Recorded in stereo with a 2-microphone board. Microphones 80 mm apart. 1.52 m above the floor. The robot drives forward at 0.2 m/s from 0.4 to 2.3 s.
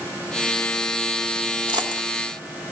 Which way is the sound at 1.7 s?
70° right (ahead or behind).